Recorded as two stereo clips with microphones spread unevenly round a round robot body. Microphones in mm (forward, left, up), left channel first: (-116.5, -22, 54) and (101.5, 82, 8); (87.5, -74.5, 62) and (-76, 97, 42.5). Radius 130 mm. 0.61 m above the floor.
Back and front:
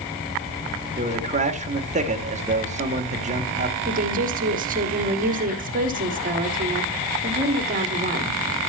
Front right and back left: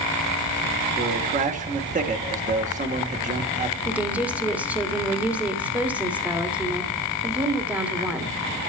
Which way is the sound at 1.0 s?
80° left.